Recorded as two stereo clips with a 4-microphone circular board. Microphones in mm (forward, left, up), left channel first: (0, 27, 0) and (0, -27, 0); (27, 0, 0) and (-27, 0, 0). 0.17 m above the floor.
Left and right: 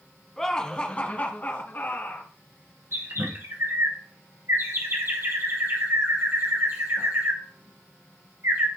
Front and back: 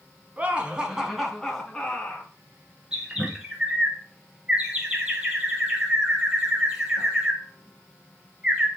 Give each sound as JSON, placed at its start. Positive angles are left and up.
{"t": 0.4, "sound": "laughter", "azimuth_deg": 170, "distance_m": 1.3}
{"t": 2.9, "sound": "a bird", "azimuth_deg": -110, "distance_m": 2.0}